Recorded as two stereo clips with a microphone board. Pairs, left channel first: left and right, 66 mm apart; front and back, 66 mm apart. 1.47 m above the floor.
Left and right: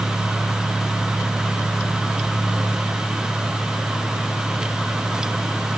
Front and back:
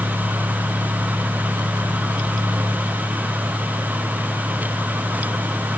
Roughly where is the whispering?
No whispering in this recording.